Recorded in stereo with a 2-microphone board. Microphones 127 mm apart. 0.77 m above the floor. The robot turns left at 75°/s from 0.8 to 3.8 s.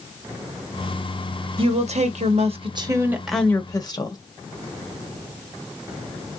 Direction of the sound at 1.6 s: 50° right.